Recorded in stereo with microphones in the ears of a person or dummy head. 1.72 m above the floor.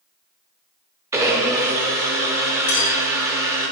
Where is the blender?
10° right (ahead or behind), 0.8 m.